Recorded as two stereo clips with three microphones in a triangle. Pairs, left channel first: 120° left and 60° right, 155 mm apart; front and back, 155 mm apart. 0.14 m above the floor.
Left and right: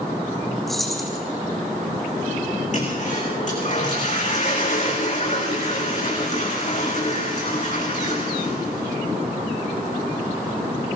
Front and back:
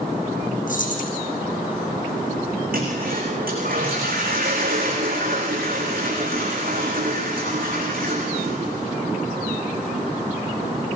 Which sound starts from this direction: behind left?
A toilet flushing, at 2.7 s.